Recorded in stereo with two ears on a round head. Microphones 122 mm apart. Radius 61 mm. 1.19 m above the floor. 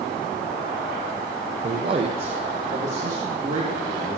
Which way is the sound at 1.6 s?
30° right (ahead or behind).